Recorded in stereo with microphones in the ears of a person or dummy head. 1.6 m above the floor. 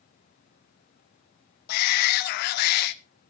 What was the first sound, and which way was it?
A shout, 45° left (ahead or behind).